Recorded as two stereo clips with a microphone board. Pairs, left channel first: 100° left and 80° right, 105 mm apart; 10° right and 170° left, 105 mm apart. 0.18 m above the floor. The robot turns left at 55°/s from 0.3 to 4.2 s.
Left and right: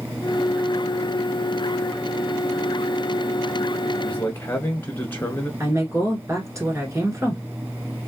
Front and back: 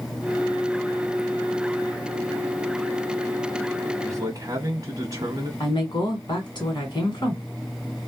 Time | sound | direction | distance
4.0 | a man speaking | 160° left | 1.2 m
5.6 | a woman speaking | 35° right | 1.7 m